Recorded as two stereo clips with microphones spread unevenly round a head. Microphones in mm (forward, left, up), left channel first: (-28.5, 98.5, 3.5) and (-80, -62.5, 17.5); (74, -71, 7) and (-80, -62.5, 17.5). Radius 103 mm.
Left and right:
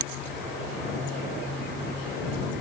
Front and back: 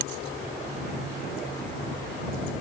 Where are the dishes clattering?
No dishes clattering in this recording.